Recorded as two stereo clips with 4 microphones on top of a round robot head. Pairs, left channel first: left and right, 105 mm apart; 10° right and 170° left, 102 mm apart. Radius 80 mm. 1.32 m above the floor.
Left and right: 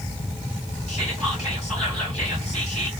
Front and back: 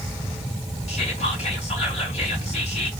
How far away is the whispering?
About 2 m.